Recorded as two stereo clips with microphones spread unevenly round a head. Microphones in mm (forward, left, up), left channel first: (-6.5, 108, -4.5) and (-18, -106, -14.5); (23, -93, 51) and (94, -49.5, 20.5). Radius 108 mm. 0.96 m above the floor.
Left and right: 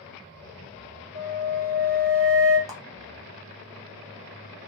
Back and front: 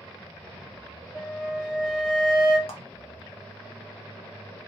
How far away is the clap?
About 0.8 m.